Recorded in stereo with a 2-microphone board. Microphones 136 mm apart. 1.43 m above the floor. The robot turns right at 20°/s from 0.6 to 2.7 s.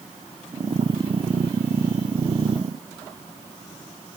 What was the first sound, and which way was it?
Only background noise.